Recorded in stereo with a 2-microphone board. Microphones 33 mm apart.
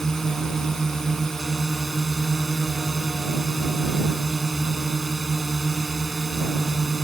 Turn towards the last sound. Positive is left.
turn(degrees=15)  # may be behind; listen again after turning